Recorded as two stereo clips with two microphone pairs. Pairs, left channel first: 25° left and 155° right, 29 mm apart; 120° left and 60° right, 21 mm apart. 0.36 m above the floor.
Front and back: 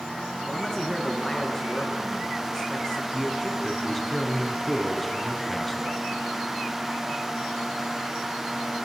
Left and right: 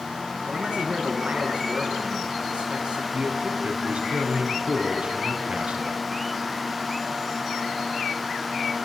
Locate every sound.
0.5 s a man speaking: 35° right, 6.5 m
3.1 s a man speaking: 55° right, 3.5 m